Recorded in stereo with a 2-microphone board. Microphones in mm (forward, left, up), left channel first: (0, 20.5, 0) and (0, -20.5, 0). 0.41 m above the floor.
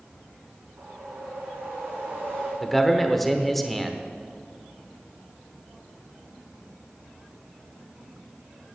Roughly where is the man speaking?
Centre.